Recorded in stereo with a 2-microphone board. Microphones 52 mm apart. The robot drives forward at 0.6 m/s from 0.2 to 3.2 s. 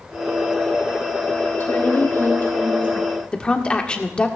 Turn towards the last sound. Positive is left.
turn(degrees=20)  # may be behind; listen again after turning